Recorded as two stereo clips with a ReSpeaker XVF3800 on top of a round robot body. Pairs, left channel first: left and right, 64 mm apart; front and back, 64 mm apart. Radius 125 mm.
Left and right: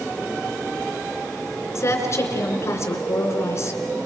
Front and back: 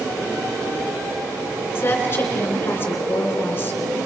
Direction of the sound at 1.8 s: 55° left.